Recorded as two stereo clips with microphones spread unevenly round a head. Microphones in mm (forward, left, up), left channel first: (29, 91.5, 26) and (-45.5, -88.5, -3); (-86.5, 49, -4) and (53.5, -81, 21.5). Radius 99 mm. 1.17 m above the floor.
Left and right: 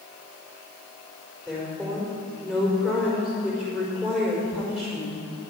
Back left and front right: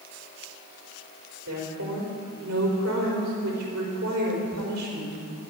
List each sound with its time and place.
1.5 s a woman speaking: 20° right, 4.5 m